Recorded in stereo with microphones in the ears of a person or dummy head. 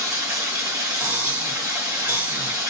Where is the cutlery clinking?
15° right (ahead or behind), 1.8 m.